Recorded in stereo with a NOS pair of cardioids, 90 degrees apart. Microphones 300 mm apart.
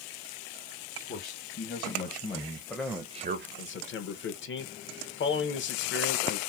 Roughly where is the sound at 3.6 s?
Ahead left.